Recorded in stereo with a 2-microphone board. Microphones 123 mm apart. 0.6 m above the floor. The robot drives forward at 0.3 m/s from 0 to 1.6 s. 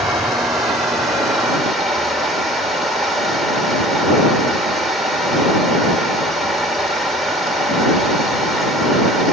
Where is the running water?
Centre (ahead or behind), 2 m.